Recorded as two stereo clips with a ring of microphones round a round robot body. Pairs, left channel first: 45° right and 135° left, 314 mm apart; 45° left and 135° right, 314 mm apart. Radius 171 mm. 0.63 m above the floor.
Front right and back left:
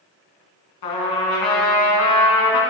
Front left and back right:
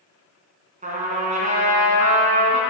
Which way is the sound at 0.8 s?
65° right.